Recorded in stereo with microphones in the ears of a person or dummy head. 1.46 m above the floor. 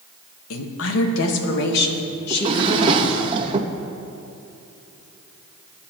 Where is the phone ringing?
No phone ringing in this recording.